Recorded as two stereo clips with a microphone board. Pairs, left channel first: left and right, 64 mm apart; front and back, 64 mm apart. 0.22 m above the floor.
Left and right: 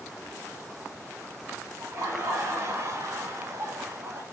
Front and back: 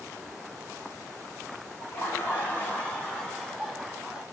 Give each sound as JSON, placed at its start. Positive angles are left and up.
{"t": 1.8, "sound": "laughter", "azimuth_deg": -55, "distance_m": 1.9}